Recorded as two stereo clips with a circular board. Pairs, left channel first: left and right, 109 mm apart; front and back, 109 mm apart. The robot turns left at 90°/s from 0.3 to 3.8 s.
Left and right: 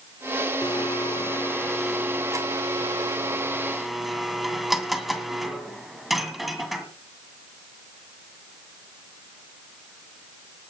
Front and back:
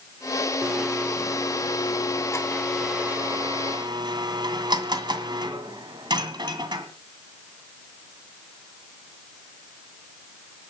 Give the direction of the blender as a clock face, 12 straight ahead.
8 o'clock.